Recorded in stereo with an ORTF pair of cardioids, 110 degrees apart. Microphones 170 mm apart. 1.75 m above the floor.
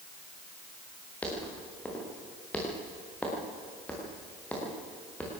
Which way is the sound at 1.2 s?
10° left.